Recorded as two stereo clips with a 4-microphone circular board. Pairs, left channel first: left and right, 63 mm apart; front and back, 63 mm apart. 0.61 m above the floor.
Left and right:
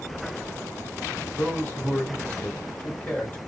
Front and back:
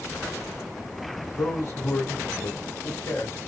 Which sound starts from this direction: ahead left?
A man speaking, at 1.4 s.